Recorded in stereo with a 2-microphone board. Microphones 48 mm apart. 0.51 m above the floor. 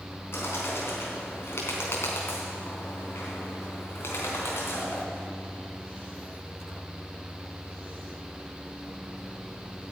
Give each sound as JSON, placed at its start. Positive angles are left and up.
{"t": 0.3, "sound": "a bird", "side_deg": 60, "distance_m": 3.5}